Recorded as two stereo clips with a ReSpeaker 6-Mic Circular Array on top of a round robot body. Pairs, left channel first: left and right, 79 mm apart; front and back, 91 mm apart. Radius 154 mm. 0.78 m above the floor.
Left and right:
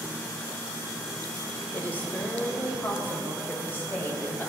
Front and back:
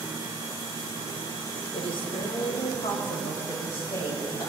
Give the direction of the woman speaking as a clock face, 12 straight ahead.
11 o'clock.